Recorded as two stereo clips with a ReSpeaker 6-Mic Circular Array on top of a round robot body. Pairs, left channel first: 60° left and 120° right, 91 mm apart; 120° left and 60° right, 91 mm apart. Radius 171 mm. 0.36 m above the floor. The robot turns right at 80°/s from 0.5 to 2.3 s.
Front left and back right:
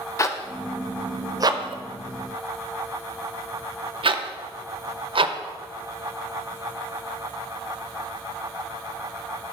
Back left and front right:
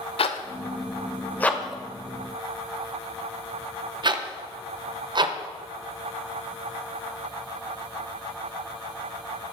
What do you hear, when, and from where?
0.2 s a zipper: 120° left, 0.8 m; by 5.3 s 100° right, 0.8 m